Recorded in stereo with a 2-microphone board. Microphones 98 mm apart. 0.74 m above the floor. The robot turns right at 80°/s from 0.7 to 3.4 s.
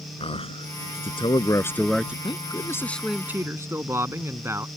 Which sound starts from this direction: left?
A man speaking, at 0.2 s.